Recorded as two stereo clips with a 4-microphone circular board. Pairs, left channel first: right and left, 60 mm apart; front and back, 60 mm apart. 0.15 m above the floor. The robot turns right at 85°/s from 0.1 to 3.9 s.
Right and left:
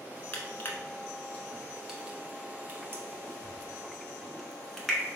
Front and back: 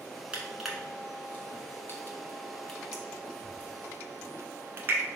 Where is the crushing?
120° right, 0.8 m; by 5.1 s 175° right, 0.8 m.